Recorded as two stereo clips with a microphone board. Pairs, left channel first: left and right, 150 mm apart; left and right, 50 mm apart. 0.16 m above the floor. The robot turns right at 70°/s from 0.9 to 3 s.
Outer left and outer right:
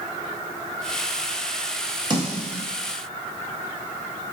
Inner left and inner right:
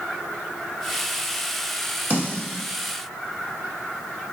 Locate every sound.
2.1 s a snare drum: 30° right (ahead or behind), 1.4 m; by 2.6 s 45° right (ahead or behind), 1.4 m